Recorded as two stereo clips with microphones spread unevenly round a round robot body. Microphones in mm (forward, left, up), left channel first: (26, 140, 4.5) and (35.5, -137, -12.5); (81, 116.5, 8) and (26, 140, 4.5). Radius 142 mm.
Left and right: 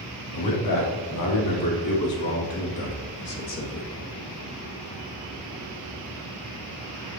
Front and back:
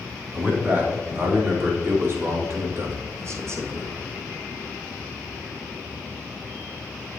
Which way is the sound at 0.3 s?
105° left.